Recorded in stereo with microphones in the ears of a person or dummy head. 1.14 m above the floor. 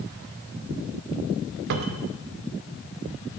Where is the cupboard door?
60° right (ahead or behind), 0.7 m.